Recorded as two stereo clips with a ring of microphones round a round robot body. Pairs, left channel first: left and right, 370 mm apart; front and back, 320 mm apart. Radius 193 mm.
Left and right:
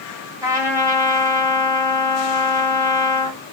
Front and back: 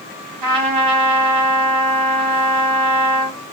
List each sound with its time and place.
0.4 s a trumpet: 170° right, 1.1 m